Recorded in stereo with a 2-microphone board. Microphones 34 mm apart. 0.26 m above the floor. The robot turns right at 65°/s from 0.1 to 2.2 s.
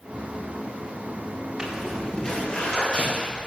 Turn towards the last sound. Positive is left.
turn(degrees=35)  # may be behind; listen again after turning